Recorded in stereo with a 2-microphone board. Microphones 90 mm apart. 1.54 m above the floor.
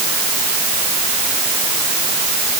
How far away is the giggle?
No giggle in this recording.